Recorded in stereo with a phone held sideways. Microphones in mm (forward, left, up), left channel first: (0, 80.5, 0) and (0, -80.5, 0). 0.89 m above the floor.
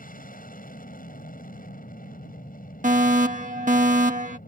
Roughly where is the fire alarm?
Right.